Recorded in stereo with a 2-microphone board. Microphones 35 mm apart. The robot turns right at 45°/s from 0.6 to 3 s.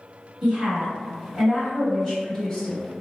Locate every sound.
0.4 s a woman speaking: 25° right (ahead or behind), 1.7 m; by 2.9 s 25° left (ahead or behind), 1.7 m